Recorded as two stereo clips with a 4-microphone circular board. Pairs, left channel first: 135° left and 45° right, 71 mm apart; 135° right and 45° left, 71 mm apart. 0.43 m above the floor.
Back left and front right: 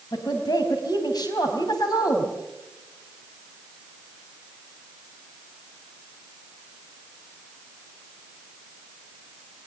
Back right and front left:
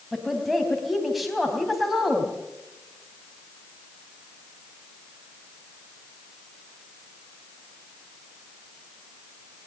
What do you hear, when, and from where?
0.1 s a woman speaking: 135° left, 3.5 m